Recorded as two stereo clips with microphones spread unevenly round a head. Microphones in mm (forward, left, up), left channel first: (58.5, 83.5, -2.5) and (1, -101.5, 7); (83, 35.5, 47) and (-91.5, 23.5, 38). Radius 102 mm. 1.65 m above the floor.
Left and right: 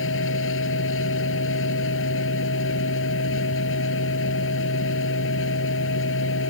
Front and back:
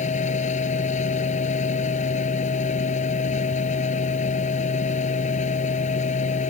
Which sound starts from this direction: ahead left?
A machine running, at 0.0 s.